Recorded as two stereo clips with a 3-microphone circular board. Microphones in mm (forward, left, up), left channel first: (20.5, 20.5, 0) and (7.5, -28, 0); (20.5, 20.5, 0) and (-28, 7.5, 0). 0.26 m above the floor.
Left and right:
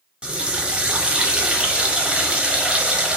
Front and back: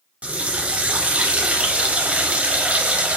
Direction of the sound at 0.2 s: 145° right.